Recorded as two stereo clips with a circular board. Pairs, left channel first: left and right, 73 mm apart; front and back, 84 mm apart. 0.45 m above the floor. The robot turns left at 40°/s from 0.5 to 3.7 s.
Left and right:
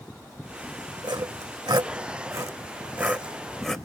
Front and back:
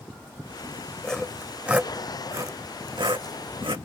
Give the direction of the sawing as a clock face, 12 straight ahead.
3 o'clock.